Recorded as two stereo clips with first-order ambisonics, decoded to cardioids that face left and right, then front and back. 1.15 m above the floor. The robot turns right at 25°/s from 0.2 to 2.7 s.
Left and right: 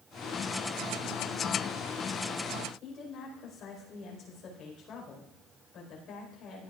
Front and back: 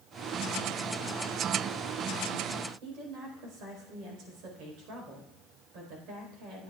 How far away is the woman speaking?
About 4.5 m.